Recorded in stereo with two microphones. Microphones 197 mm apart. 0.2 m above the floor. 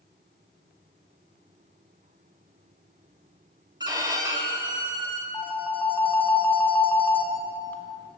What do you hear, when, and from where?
3.8 s a violin: 20° right (ahead or behind), 0.7 m
5.3 s a phone ringing: 10° left (ahead or behind), 0.7 m